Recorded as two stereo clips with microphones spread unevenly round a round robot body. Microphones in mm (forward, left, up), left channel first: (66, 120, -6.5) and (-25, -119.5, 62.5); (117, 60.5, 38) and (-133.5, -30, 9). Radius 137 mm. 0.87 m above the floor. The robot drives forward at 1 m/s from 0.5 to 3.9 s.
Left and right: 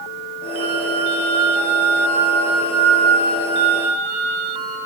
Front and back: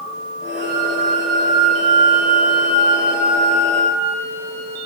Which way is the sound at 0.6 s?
140° right.